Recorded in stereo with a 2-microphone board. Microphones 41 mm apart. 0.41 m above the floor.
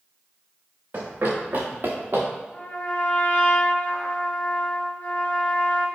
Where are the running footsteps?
65° right (ahead or behind), 2.5 m.